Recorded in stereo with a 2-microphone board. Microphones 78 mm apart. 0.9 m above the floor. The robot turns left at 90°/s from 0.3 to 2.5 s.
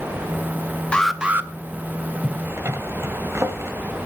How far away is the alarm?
About 1.0 m.